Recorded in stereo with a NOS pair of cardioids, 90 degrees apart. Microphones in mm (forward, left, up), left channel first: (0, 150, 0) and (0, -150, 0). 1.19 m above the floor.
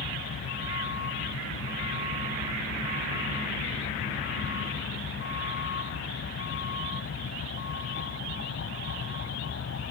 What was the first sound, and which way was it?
A vehicle, 45° left.